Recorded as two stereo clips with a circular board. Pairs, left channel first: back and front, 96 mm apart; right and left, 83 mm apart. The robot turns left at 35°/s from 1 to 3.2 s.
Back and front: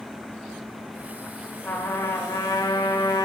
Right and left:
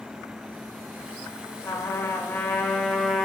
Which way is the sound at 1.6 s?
120° right.